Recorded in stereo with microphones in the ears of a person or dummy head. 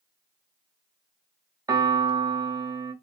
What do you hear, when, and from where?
1.7 s a piano: 20° right (ahead or behind), 0.9 m